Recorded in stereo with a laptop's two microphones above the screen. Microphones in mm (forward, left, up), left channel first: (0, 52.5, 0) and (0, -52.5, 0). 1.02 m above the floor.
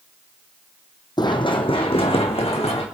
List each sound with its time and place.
1.2 s running footsteps: 40° left (ahead or behind), 1.7 m; by 2.9 s 70° left (ahead or behind), 3.5 m